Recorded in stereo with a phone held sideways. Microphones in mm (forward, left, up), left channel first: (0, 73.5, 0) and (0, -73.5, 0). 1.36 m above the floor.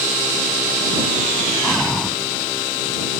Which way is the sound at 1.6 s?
5° left (ahead or behind).